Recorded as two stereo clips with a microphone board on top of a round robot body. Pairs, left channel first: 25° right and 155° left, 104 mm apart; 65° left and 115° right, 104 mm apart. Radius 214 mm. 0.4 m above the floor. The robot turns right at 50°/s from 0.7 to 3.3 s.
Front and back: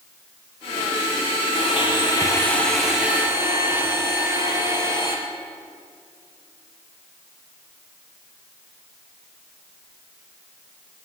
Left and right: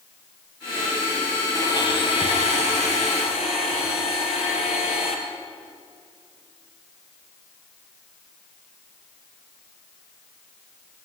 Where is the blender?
5° left, 3.5 m; by 5.2 s 90° left, 3.5 m.